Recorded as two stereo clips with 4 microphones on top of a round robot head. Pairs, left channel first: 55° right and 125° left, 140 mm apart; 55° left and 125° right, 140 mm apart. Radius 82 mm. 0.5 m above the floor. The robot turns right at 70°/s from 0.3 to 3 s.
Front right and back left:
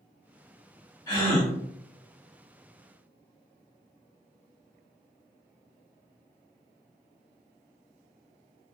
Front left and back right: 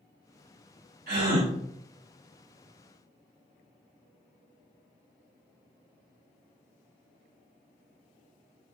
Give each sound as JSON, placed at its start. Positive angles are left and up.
{"t": 1.1, "sound": "a gasp", "azimuth_deg": -120, "distance_m": 2.0}